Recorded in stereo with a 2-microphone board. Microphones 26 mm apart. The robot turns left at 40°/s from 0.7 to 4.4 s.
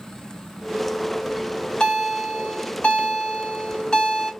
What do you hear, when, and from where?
1.3 s a bell: 155° left, 1.9 m; by 4.3 s 30° left, 1.9 m